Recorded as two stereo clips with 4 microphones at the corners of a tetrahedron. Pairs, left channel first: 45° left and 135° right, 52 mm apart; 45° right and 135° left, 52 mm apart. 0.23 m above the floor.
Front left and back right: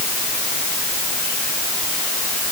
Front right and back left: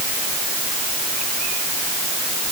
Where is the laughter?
I don't hear laughter.